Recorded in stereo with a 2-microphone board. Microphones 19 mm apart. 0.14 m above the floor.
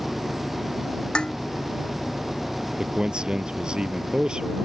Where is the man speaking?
50° right (ahead or behind).